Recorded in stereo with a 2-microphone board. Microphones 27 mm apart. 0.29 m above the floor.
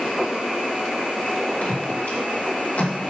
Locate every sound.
1.6 s footsteps: 80° left, 5.5 m; by 3.1 s 70° left (ahead or behind), 5.5 m